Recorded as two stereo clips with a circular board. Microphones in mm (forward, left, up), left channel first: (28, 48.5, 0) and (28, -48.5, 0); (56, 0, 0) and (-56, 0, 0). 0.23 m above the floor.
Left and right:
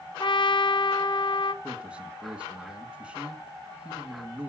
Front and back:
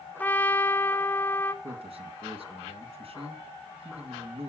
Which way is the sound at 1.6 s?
170° right.